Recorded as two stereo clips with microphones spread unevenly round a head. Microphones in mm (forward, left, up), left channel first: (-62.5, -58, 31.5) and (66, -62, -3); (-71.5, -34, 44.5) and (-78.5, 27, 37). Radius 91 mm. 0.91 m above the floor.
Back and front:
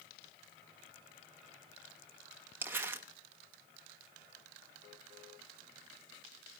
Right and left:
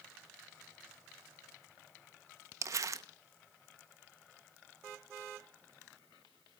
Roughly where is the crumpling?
Ahead left.